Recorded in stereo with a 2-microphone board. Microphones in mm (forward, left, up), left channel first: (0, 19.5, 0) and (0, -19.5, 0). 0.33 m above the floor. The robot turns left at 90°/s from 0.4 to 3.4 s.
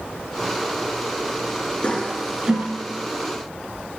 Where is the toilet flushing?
30° left (ahead or behind), 1.3 m; by 2.6 s 40° right (ahead or behind), 1.3 m.